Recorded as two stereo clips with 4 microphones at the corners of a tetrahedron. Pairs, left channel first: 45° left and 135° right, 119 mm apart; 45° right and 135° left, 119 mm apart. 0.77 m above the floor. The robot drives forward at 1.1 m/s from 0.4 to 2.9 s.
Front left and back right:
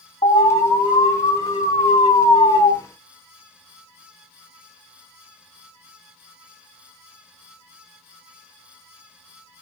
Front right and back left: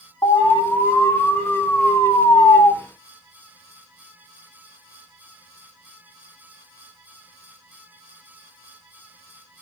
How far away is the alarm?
About 5.5 m.